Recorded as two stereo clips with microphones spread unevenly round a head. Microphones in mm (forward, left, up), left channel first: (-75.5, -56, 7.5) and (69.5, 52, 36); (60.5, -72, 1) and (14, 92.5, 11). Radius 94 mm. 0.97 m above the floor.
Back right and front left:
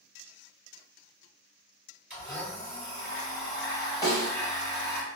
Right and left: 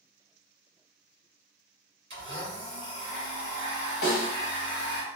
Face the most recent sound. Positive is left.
turn(degrees=-75)